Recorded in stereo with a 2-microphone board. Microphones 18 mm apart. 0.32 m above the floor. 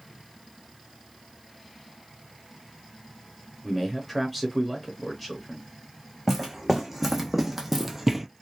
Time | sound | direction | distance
3.6 | a man speaking | centre (ahead or behind) | 0.8 m
6.3 | footsteps | 15° right (ahead or behind) | 1.5 m